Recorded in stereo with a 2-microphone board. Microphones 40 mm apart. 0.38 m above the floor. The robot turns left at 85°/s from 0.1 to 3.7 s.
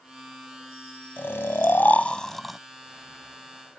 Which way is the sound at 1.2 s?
110° left.